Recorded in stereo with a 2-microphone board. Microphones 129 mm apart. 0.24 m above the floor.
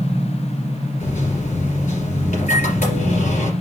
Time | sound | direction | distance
1.0 | a microwave | 70° left (ahead or behind) | 3 m